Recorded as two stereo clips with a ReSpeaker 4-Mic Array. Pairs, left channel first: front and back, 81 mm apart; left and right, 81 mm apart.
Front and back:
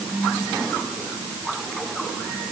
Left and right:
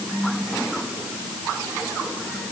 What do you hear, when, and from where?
Only background noise.